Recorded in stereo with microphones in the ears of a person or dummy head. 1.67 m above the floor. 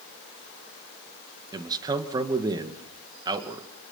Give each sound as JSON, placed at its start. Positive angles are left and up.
{"t": 1.5, "sound": "a man speaking", "side_deg": -20, "distance_m": 2.0}